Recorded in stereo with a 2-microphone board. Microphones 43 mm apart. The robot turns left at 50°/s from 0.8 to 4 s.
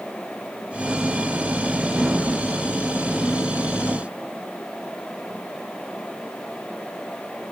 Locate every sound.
Only background noise.